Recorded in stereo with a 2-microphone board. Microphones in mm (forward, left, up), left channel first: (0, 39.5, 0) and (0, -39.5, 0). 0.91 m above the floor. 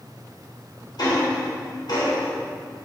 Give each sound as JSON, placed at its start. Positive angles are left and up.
{"t": 1.0, "sound": "ticking", "side_deg": 60, "distance_m": 3.0}